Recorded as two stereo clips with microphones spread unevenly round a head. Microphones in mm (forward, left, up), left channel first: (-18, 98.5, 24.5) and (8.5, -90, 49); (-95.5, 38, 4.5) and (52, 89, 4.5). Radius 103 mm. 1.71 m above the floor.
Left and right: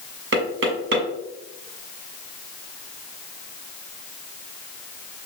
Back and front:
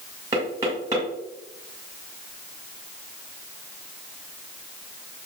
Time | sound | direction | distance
0.3 | knocking | 55° right | 2.0 m